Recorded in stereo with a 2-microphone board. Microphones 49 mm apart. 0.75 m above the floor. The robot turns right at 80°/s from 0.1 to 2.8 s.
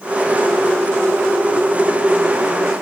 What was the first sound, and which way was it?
Only background noise.